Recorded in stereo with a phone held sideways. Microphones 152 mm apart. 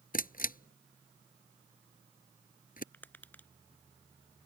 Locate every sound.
0.1 s a camera shutter: 70° left (ahead or behind)
2.9 s tapping: 10° left (ahead or behind)